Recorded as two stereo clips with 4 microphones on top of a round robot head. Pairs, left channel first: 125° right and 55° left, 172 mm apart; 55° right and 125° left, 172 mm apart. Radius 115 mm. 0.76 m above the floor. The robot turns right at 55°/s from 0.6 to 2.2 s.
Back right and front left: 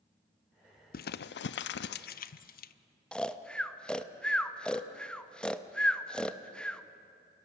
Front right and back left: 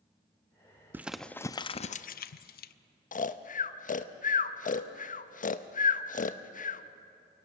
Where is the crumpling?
160° right, 0.5 m; by 2.7 s 90° right, 0.5 m.